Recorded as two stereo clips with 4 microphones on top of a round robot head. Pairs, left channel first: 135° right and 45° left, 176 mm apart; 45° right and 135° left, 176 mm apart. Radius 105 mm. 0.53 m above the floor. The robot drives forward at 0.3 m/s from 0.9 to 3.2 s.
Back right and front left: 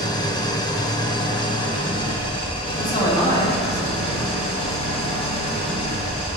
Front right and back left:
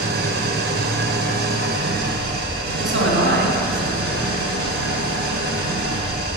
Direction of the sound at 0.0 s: 155° left.